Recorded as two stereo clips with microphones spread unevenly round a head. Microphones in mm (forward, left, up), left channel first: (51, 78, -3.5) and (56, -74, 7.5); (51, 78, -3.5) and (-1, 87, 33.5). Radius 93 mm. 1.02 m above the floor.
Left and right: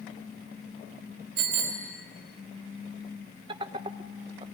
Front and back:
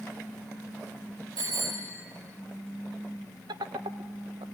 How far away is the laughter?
About 0.6 m.